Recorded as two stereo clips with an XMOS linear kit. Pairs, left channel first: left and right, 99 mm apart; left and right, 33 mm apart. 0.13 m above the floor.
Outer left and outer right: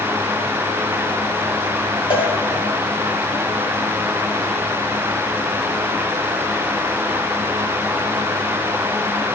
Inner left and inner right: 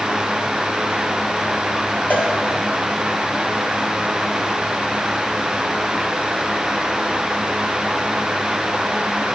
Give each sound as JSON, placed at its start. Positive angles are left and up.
{"t": 2.1, "sound": "a cowbell", "side_deg": 65, "distance_m": 2.5}